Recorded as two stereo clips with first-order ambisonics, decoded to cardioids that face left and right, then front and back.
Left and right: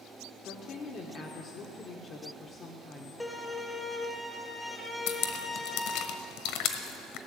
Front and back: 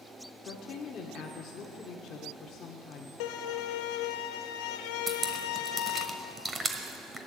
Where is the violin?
10° left, 0.9 m.